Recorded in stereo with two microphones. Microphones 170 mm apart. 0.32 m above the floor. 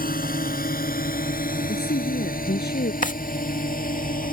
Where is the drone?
60° left (ahead or behind); by 4.3 s 55° left (ahead or behind).